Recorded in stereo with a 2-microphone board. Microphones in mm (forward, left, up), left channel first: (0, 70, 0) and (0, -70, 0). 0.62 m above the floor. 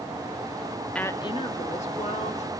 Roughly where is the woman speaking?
Centre.